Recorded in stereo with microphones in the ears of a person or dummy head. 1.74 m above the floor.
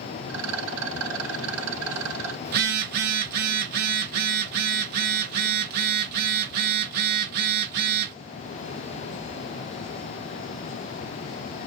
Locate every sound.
0.3 s a rattle: 75° right (ahead or behind), 2.5 m
2.5 s a phone buzzing: 55° right (ahead or behind), 2.5 m